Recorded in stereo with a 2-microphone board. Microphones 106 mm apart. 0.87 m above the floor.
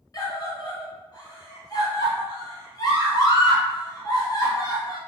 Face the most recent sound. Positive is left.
turn(degrees=35)  # may be behind; listen again after turning